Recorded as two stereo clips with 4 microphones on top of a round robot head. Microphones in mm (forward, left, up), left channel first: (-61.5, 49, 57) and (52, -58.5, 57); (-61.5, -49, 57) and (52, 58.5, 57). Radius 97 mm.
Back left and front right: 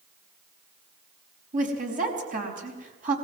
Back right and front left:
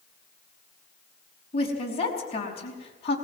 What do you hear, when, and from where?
1.5 s a woman speaking: 80° right, 5 m